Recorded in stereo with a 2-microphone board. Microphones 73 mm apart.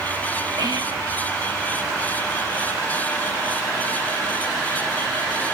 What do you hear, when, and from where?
0.6 s whispering: 70° right (ahead or behind), 1.3 m